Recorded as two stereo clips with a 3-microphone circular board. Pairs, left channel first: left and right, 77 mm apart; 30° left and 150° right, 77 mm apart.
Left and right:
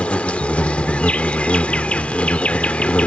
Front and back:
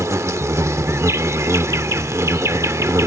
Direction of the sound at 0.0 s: 165° left.